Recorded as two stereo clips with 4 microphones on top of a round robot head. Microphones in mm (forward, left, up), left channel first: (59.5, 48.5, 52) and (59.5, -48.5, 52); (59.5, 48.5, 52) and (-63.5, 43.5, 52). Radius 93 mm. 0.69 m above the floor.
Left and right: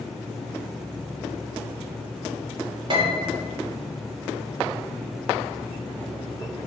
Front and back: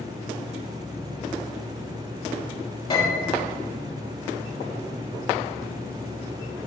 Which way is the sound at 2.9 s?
50° right.